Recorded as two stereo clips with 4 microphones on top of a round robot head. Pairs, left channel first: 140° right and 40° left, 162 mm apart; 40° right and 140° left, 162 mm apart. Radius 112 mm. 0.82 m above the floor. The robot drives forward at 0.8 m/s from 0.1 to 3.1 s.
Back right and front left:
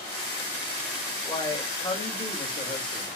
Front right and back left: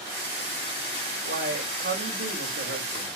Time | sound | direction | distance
1.2 | a man speaking | 150° left | 3.5 m